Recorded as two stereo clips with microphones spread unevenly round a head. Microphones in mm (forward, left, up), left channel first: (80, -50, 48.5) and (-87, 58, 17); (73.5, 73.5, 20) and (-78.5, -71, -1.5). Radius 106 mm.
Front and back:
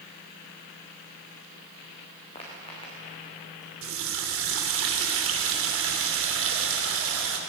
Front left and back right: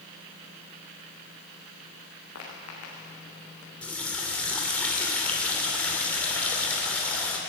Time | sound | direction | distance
2.4 | footsteps | 25° left | 6 m
3.8 | a running tap | 125° left | 2.5 m